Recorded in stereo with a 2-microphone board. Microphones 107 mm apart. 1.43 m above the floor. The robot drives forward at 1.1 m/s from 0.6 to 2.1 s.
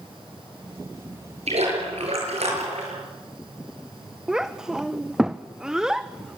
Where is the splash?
80° right, 8 m; by 3.0 s 75° right (ahead or behind), 8 m.